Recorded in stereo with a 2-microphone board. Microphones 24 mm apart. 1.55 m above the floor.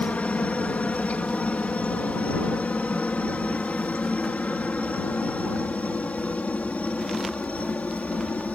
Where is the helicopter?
65° left (ahead or behind); by 8.6 s 70° left (ahead or behind).